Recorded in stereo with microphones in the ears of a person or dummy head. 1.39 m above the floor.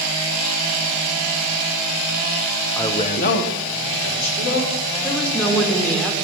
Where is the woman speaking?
10° left (ahead or behind), 1.7 m.